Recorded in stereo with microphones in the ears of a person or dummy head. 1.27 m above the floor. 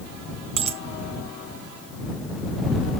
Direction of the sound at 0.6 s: 35° right (ahead or behind).